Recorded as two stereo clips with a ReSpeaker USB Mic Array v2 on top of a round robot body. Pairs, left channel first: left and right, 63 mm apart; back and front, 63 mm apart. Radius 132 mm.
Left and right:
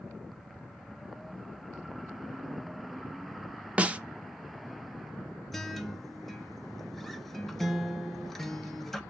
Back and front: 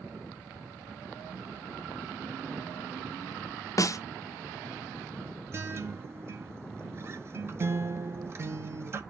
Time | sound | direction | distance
3.8 | a snare drum | 160° right | 0.8 m
5.5 | a guitar | 5° left | 1.0 m